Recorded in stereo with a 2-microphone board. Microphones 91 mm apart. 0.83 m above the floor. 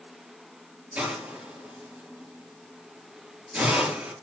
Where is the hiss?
15° right (ahead or behind), 7.5 m.